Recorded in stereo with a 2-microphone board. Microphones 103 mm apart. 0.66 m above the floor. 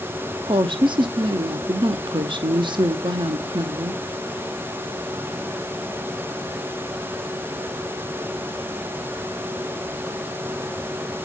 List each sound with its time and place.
0.5 s a woman speaking: 50° right (ahead or behind), 0.8 m